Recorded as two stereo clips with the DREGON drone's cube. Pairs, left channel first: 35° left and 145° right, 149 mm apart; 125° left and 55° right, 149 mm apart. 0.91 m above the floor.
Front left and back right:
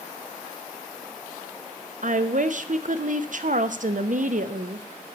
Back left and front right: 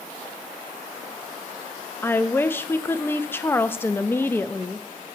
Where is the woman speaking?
160° right, 0.6 m.